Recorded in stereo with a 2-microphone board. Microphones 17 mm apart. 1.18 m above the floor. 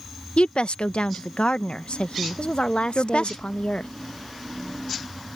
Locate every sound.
0.4 s a woman speaking: 80° left
2.4 s a woman speaking: 80° left